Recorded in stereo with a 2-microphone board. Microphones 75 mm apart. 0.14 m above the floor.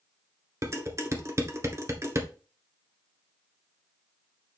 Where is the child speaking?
I don't hear a child speaking.